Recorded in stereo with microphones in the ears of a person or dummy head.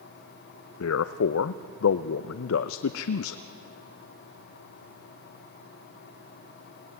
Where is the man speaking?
80° left, 0.5 m.